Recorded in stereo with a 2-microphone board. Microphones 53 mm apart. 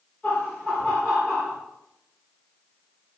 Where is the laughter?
25° left (ahead or behind), 1.7 m; by 1.6 s 15° right (ahead or behind), 1.6 m.